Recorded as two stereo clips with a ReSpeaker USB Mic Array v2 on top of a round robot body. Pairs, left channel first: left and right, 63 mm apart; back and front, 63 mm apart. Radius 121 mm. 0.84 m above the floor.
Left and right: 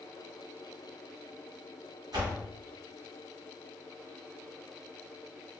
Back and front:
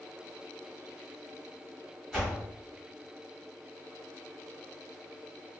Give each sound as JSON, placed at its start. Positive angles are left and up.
{"t": 2.1, "sound": "a door slam", "azimuth_deg": -95, "distance_m": 1.5}